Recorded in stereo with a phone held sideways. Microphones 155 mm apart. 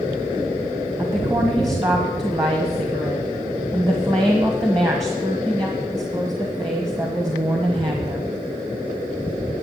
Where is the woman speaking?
25° right (ahead or behind), 1.4 m.